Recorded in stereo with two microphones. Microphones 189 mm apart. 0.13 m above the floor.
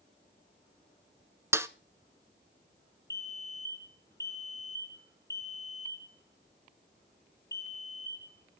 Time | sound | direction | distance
1.5 | a snare drum | 15° right (ahead or behind) | 0.7 m
3.1 | a fire alarm | 65° left (ahead or behind) | 5.5 m